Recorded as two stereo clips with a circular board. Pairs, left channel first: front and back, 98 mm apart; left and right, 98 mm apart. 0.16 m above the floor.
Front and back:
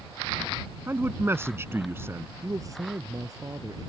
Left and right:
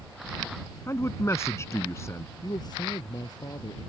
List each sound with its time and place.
0.9 s a man speaking: 130° left
2.4 s a man speaking: 130° left